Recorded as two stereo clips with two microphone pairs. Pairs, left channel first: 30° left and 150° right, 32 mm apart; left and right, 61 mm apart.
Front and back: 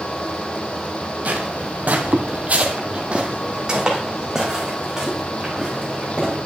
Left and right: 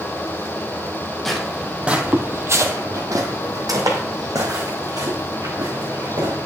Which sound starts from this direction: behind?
Footsteps, at 1.2 s.